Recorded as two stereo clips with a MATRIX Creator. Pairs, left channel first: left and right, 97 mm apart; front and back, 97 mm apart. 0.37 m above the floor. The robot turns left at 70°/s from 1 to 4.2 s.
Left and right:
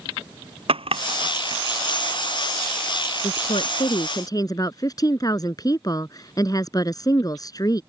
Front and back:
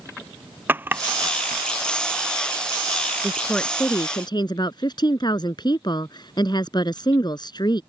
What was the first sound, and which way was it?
Chopping, 110° right.